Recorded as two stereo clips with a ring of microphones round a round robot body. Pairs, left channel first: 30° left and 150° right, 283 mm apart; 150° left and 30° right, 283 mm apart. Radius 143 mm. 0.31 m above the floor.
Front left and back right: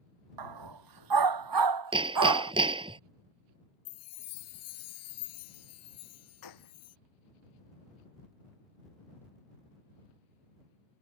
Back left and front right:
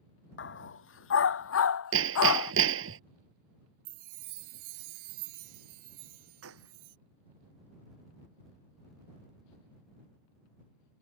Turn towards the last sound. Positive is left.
turn(degrees=15)